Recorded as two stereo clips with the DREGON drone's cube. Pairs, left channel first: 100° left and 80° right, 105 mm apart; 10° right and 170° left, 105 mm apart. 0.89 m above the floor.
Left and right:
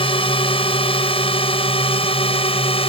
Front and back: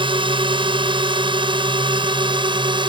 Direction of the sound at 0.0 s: 130° left.